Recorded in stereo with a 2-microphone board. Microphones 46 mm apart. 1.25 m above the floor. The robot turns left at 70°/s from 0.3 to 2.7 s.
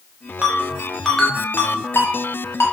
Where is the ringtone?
40° right (ahead or behind), 0.7 m; by 2.6 s 65° left (ahead or behind), 0.7 m.